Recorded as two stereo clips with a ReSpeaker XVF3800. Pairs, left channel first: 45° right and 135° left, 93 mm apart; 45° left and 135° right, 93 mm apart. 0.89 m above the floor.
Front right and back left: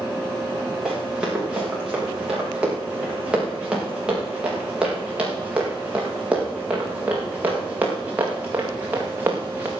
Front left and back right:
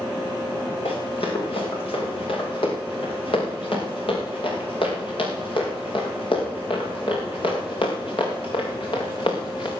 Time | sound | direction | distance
0.8 | running footsteps | 55° left | 8.5 m